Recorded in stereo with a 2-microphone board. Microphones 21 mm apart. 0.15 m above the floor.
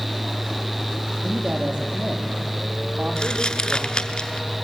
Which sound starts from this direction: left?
Crumpling, at 3.2 s.